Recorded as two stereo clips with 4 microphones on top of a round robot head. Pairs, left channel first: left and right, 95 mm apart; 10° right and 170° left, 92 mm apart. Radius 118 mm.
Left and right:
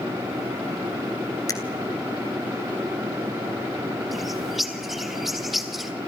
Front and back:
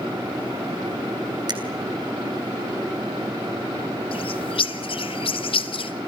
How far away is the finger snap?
About 4 m.